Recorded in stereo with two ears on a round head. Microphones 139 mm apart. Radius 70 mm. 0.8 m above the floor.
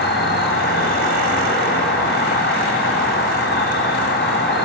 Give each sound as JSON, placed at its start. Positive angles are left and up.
{"t": 0.0, "sound": "an insect", "side_deg": 70, "distance_m": 4.5}